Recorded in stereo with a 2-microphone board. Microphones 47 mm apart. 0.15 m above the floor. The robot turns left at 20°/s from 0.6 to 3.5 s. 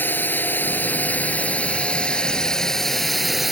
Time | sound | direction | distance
0.0 | a drone | 55° left | ?